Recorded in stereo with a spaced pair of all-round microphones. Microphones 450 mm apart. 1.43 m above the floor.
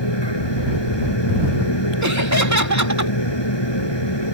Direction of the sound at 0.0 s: 70° left (ahead or behind).